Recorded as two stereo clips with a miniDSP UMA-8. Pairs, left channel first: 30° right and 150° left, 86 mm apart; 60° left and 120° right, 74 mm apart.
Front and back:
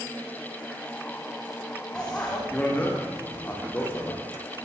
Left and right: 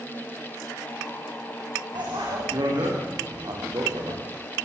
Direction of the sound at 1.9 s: 110° right.